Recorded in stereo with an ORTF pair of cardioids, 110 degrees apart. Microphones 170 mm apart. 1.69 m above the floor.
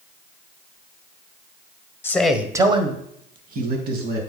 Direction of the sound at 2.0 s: 15° left.